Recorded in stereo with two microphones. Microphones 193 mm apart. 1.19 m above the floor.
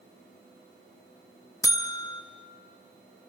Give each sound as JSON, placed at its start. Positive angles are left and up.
{"t": 1.6, "sound": "a buzzer", "side_deg": 15, "distance_m": 0.8}